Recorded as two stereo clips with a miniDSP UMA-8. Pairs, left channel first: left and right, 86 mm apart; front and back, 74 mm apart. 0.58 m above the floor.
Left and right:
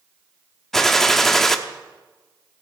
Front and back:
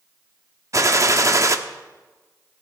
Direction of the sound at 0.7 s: 175° left.